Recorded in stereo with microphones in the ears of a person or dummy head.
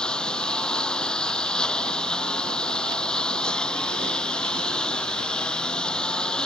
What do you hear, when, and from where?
0.0 s a lawn mower: 10° left (ahead or behind)